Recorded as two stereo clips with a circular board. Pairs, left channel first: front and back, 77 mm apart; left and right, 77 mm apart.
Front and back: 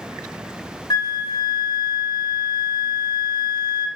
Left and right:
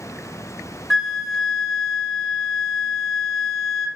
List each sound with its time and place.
0.9 s a flute: straight ahead, 0.7 m